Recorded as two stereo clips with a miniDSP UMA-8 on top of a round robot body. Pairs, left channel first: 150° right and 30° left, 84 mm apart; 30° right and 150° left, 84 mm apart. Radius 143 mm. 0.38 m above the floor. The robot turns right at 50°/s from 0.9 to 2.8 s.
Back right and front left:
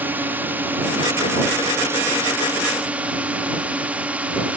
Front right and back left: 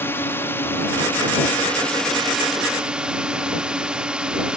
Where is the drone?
10° right; by 4.6 s 85° left.